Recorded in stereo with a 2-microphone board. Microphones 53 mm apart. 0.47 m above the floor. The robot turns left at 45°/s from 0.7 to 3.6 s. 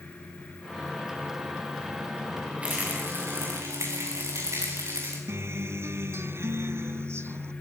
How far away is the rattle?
About 10 m.